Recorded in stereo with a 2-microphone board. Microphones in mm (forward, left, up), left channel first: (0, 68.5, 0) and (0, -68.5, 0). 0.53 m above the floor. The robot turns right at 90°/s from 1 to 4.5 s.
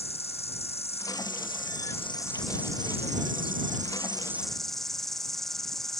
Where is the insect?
45° left; by 6.0 s straight ahead.